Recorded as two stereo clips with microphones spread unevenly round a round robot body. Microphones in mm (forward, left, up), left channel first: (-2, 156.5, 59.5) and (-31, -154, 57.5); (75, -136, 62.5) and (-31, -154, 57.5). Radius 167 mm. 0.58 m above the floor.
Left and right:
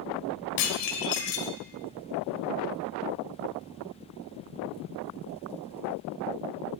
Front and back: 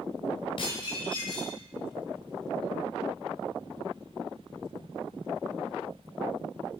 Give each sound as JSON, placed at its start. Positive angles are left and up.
{"t": 0.6, "sound": "dishes clattering", "azimuth_deg": 65, "distance_m": 1.8}